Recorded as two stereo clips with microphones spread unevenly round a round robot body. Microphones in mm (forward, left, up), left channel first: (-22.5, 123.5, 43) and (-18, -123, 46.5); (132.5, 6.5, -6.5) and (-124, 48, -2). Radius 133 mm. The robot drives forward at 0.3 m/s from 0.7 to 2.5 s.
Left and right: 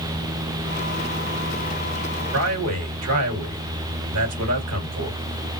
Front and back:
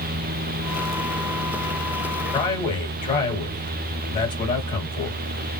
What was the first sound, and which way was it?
A man speaking, 80° right.